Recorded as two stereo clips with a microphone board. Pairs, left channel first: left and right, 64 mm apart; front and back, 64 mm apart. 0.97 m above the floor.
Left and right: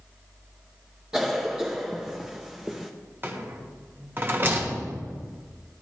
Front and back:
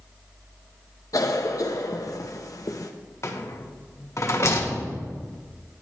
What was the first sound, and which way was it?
A cough, 10° right.